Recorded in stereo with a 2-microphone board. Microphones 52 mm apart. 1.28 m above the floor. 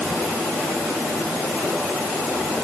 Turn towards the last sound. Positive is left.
No sound to turn to.